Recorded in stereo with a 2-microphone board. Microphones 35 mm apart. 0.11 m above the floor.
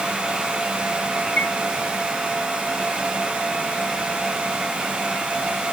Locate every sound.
1.4 s a chime: 75° left (ahead or behind), 3.5 m